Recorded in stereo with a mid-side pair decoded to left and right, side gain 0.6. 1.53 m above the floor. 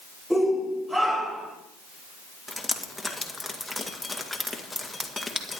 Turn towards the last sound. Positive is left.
turn(degrees=5)